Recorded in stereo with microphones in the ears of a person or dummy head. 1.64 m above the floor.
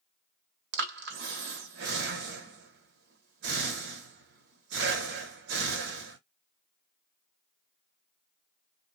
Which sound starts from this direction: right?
Breathing, at 0.7 s.